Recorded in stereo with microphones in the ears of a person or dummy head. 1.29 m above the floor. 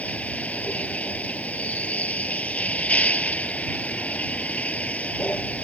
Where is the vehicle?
5° left (ahead or behind).